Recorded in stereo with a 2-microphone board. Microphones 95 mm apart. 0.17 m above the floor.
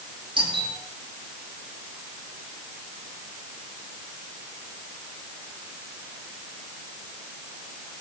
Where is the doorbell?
60° right (ahead or behind), 8 m.